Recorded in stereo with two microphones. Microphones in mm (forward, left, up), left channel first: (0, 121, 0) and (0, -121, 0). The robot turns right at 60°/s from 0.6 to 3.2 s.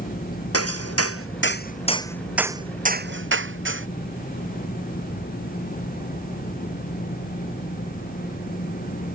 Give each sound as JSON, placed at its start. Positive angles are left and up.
{"t": 0.5, "sound": "hammering", "side_deg": 75}